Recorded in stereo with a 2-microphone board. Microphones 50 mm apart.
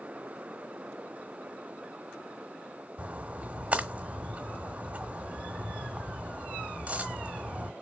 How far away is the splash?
About 1.1 m.